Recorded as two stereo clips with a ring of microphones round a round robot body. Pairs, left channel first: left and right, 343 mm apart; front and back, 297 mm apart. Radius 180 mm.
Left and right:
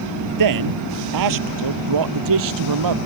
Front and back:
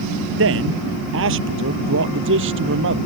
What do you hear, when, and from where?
0.4 s a man speaking: 125° right; by 3.0 s 120° right